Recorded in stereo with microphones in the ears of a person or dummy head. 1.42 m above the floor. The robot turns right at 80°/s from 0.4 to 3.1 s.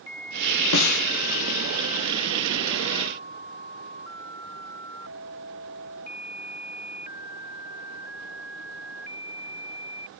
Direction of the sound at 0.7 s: 80° left.